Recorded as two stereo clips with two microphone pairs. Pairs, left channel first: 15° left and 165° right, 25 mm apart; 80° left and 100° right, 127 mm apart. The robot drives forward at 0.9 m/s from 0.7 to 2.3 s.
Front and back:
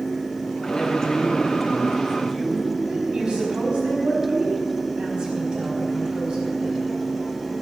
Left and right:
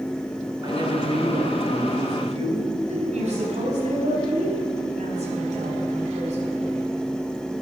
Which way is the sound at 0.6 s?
50° right.